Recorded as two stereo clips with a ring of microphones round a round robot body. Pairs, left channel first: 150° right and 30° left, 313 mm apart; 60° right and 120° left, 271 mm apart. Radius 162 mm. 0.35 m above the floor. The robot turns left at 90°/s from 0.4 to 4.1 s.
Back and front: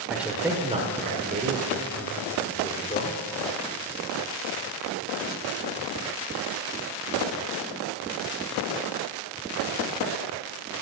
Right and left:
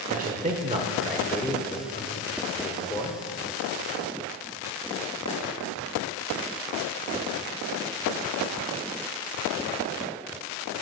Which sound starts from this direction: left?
A man speaking, at 0.1 s.